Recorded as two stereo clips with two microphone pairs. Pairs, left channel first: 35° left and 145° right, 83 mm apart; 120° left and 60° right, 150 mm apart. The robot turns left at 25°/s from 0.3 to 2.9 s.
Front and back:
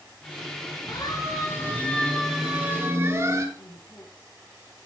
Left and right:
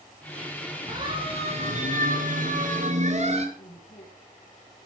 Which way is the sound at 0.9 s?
Straight ahead.